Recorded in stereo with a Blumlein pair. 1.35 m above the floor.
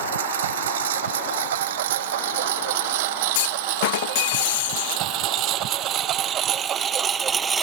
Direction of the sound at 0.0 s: 60° right.